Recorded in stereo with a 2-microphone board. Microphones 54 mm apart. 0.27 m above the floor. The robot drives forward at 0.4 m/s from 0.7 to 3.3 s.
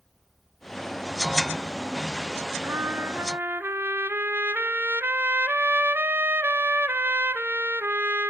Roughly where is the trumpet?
Right.